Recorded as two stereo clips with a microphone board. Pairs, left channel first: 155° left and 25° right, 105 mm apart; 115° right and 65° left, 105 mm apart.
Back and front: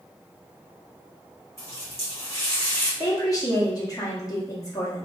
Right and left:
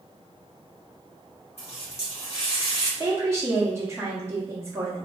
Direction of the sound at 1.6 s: 135° right.